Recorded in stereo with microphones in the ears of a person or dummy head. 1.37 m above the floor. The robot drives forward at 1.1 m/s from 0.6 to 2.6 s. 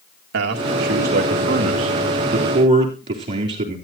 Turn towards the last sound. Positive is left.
turn(degrees=-35)  # may be behind; listen again after turning